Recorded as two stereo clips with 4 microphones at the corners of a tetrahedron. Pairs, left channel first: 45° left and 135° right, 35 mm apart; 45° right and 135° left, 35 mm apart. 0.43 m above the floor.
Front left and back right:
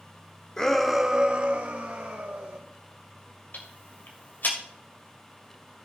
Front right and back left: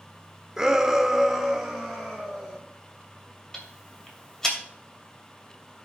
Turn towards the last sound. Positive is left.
turn(degrees=30)